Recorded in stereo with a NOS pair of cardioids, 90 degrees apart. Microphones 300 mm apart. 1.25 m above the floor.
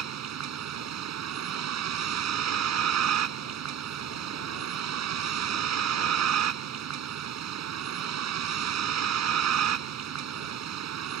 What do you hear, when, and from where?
0.0 s a vehicle: 60° right